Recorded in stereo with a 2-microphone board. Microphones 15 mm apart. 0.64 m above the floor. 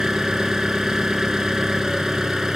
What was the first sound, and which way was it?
An engine running, 40° right (ahead or behind).